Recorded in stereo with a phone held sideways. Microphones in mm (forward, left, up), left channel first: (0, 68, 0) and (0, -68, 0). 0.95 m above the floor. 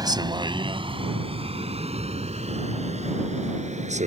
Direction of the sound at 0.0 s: 30° right (ahead or behind).